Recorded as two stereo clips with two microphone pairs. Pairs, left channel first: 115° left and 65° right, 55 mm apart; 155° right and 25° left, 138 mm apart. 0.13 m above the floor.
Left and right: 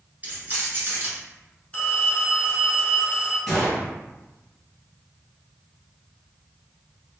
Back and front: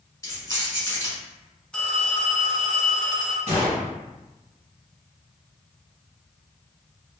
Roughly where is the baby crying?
No baby crying in this recording.